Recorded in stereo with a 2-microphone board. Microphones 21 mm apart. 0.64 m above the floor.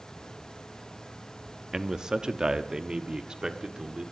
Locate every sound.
1.7 s a man speaking: 25° right (ahead or behind), 0.8 m; by 4.0 s 40° right (ahead or behind), 1.7 m